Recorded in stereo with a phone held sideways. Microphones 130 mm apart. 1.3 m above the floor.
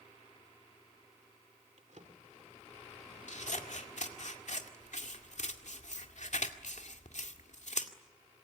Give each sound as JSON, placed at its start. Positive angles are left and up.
{"t": 1.8, "sound": "a drawer", "side_deg": -65, "distance_m": 2.5}
{"t": 3.3, "sound": "scissors", "side_deg": 65, "distance_m": 2.0}